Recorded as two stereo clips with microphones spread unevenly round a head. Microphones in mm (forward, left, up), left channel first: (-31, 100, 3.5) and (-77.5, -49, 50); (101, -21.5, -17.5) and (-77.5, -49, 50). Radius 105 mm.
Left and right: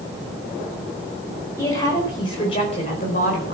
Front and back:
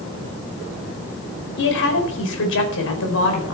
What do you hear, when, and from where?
1.6 s a woman speaking: 5° right, 4 m; by 3.5 s 25° left, 4 m